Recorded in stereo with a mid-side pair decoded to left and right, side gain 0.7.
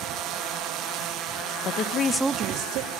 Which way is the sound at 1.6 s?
60° left.